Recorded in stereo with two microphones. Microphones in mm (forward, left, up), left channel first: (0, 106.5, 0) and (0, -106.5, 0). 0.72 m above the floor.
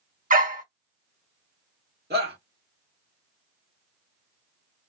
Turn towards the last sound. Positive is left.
turn(degrees=-50)  # may be behind; listen again after turning